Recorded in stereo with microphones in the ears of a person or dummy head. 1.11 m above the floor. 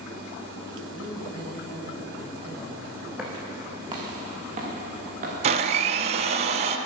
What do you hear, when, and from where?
0.9 s a man speaking: 25° right (ahead or behind), 6.5 m; by 3.1 s 35° right (ahead or behind), 6 m
3.2 s footsteps: centre (ahead or behind), 2.5 m; by 5.3 s 45° right (ahead or behind), 4.5 m
5.4 s a blender: 30° right (ahead or behind), 0.8 m